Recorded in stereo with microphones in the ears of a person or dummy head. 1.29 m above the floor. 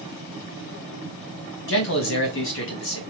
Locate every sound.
1.7 s a man speaking: 65° left (ahead or behind), 1.4 m